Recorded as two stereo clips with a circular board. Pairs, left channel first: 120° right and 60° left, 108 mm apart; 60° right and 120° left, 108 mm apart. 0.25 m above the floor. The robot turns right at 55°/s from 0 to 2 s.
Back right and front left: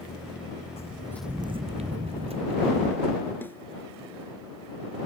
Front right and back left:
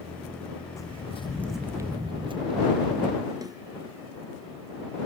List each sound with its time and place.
0.8 s footsteps: 120° right; by 3.3 s 85° left
3.4 s a snare drum: 170° left